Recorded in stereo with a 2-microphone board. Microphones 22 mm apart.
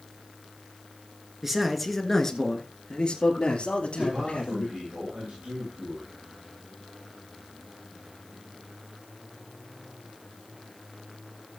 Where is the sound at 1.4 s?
10° right (ahead or behind), 1.7 m; by 4.8 s 70° left (ahead or behind), 4 m.